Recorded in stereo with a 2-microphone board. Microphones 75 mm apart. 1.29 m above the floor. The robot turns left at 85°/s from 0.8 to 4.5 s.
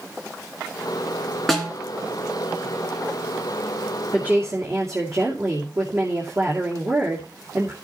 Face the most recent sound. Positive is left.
turn(degrees=-40)